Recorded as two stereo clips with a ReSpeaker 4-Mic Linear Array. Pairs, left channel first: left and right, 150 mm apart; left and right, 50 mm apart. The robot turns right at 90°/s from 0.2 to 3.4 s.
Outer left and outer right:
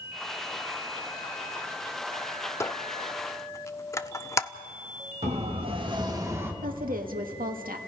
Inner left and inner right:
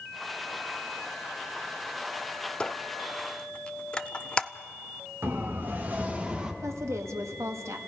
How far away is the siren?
About 2 m.